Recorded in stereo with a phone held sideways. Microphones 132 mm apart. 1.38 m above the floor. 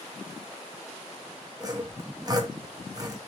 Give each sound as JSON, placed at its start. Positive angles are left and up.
{"t": 1.6, "sound": "sawing", "side_deg": -30, "distance_m": 0.7}